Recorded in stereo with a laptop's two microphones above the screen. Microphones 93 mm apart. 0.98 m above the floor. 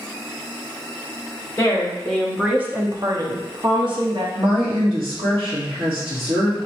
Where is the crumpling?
No crumpling in this recording.